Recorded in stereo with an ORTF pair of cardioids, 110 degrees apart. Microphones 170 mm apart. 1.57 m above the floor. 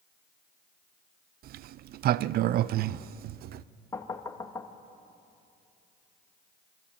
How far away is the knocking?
About 1.9 m.